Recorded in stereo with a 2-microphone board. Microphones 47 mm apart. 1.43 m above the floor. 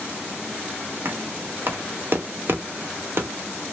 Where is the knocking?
50° right (ahead or behind), 0.5 m.